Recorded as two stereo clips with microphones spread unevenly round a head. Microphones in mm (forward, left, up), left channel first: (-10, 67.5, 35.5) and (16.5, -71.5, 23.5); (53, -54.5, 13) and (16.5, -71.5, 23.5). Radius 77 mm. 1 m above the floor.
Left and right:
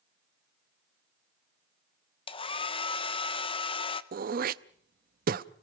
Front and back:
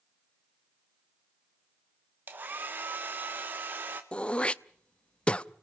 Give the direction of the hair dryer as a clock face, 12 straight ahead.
7 o'clock.